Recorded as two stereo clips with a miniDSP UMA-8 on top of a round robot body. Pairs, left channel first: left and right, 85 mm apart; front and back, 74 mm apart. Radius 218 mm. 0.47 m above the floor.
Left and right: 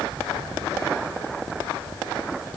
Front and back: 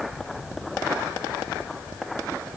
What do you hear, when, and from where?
Only background noise.